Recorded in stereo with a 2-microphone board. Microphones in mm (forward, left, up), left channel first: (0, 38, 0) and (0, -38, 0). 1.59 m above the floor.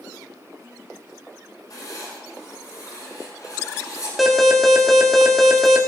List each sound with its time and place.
1.7 s writing: 55° left (ahead or behind), 8 m
4.2 s an alarm: centre (ahead or behind), 2.0 m